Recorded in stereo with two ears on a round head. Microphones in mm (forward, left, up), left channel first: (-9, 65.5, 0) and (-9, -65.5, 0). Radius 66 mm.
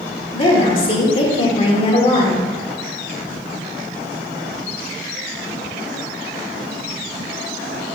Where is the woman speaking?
40° left (ahead or behind), 1.6 m.